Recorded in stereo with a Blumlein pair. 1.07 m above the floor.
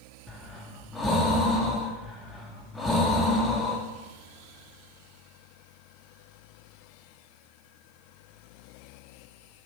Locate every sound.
0.3 s breathing: 10° left, 0.6 m